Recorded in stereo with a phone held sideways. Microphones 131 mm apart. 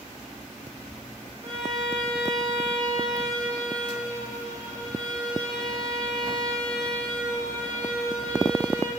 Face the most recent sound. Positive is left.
turn(degrees=-70)  # may be behind; listen again after turning